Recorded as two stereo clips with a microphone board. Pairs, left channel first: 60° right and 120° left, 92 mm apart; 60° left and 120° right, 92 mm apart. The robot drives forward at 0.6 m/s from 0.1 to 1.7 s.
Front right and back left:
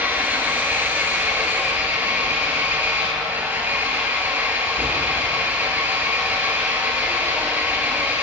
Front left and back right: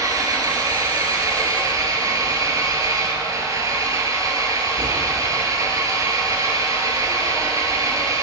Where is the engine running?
170° right, 5 m.